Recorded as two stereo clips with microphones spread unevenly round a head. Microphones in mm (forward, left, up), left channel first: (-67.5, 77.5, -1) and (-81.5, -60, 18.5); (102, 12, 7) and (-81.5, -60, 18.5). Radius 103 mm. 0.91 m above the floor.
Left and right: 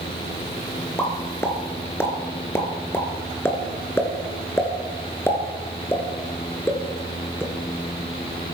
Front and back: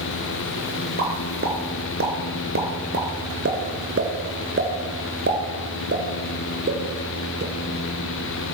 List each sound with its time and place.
1.0 s a pop: 160° left, 2.5 m